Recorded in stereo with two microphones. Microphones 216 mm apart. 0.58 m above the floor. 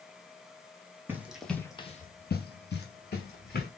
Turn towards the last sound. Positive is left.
turn(degrees=45)  # may be behind; listen again after turning